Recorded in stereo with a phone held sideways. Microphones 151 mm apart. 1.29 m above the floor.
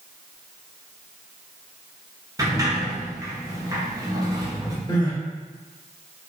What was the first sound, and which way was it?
A sliding door, 25° right (ahead or behind).